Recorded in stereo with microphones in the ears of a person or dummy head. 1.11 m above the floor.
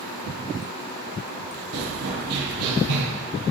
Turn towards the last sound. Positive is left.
turn(degrees=-55)  # may be behind; listen again after turning